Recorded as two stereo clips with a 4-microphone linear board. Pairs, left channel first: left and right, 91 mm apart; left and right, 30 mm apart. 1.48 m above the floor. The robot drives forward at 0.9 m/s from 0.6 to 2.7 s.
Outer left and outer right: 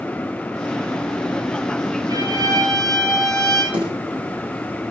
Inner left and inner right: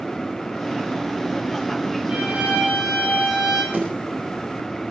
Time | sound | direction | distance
2.1 | a violin | 45° right (ahead or behind) | 8 m
3.7 | a snare drum | 65° right (ahead or behind) | 9.5 m